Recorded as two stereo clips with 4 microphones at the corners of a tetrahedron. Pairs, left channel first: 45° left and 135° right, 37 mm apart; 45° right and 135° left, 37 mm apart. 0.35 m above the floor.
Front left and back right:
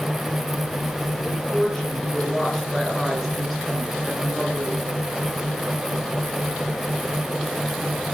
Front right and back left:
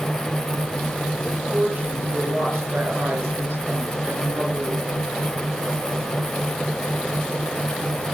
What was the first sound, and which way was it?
A woman speaking, 120° left.